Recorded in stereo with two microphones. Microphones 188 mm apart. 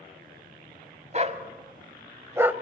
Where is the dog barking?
45° right (ahead or behind), 1.6 m; by 2.5 s 10° right (ahead or behind), 1.2 m.